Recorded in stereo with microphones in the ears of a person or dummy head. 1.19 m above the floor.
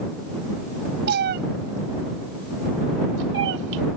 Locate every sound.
1.1 s a cat meowing: 55° right (ahead or behind); by 3.8 s 60° right (ahead or behind)